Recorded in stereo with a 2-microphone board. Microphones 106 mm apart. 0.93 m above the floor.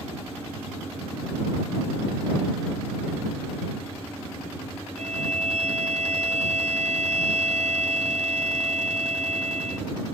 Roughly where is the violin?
Right.